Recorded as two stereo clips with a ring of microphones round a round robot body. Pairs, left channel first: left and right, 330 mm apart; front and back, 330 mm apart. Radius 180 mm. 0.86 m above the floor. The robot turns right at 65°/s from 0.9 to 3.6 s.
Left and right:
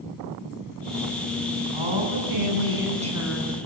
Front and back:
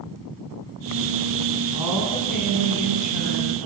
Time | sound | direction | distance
1.7 | a woman speaking | 105° right | 8 m